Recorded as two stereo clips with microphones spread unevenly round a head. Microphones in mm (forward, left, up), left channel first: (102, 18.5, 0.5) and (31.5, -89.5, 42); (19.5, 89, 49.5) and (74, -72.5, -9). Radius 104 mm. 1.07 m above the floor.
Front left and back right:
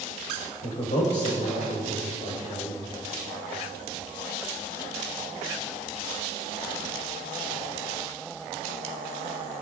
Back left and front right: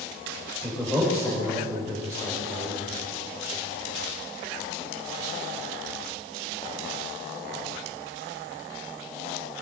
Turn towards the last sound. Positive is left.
turn(degrees=25)